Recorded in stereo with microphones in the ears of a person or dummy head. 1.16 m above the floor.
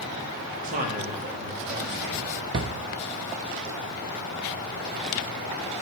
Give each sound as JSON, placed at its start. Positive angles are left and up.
{"t": 0.6, "sound": "a man speaking", "side_deg": -40, "distance_m": 1.8}
{"t": 2.5, "sound": "a drawer", "side_deg": -20, "distance_m": 0.7}